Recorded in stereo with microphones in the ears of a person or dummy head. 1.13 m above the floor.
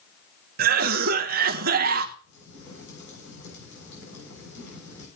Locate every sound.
0.6 s a cough: 55° right (ahead or behind), 1.0 m
2.2 s a crack: 75° left (ahead or behind), 7 m